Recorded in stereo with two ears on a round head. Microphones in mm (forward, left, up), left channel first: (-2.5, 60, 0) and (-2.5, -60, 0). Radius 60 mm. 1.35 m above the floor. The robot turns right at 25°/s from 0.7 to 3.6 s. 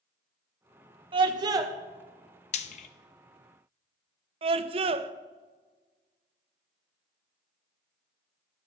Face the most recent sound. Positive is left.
turn(degrees=-45)  # may be behind; listen again after turning